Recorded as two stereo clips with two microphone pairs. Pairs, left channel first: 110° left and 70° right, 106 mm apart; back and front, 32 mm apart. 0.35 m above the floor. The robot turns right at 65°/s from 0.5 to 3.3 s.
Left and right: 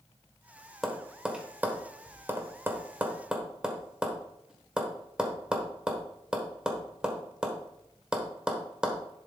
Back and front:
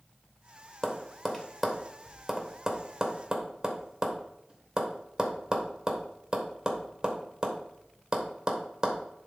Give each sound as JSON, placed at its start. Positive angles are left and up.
{"t": 0.8, "sound": "tapping", "azimuth_deg": -165, "distance_m": 1.1}